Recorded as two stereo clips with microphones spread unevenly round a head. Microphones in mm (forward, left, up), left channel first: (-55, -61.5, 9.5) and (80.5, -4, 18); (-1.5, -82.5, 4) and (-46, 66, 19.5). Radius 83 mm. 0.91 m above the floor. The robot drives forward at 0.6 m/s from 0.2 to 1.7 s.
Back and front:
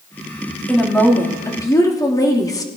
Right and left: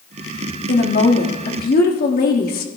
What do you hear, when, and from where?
0.7 s a woman speaking: 70° right, 1.9 m; by 2.7 s 90° right, 1.8 m